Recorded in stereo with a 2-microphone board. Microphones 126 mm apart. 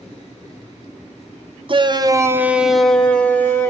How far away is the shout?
About 0.6 m.